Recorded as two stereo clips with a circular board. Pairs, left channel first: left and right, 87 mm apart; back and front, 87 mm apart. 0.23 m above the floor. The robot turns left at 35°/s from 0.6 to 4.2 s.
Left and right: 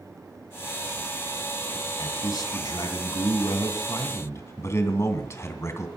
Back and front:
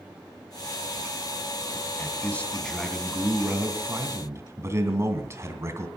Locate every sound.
2.0 s a man speaking: 120° left, 2.5 m; by 5.9 s 45° left, 2.5 m